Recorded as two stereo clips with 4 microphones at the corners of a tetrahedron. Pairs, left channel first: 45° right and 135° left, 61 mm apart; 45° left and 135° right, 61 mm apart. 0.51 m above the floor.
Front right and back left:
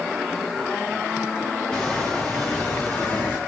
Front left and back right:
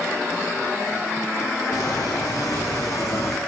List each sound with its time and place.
1.7 s footsteps: 30° left, 2.5 m; by 3.4 s 10° left, 1.6 m